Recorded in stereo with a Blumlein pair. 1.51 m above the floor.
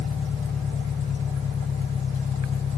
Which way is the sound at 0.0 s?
20° left.